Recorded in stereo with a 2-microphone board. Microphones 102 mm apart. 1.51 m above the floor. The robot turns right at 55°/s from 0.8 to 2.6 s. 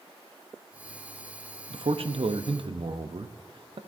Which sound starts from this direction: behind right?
A man speaking, at 1.7 s.